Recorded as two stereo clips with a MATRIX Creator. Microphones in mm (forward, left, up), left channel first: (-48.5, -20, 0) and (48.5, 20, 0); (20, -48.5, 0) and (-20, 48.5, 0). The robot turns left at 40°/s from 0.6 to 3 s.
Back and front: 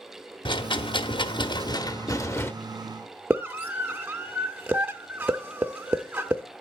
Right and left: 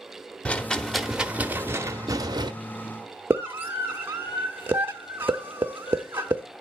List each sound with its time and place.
0.5 s a rattle: 140° right, 0.7 m; by 2.5 s 140° left, 0.7 m
3.3 s a scream: 80° left, 0.7 m